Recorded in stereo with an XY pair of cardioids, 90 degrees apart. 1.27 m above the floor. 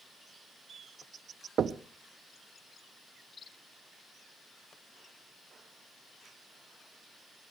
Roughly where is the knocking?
Ahead right.